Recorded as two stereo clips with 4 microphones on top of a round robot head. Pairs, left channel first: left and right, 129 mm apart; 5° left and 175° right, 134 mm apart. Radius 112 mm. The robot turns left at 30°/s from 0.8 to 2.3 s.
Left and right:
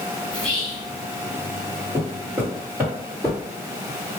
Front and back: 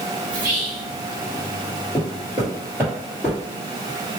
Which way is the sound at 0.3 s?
175° right.